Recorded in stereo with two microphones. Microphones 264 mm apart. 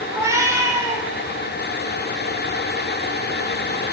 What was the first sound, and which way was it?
A cat meowing, 10° right (ahead or behind).